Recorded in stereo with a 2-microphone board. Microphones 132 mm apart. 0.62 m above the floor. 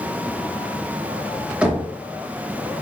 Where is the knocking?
10° right (ahead or behind), 1.1 m.